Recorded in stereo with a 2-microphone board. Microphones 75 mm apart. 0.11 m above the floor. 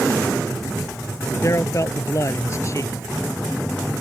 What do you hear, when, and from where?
1.4 s a man speaking: 45° left (ahead or behind)